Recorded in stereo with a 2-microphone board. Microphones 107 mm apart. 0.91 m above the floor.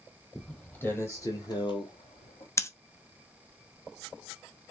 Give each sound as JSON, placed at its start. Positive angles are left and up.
{"t": 0.3, "sound": "footsteps", "side_deg": 5, "distance_m": 1.8}
{"t": 2.6, "sound": "scissors", "side_deg": 25, "distance_m": 0.6}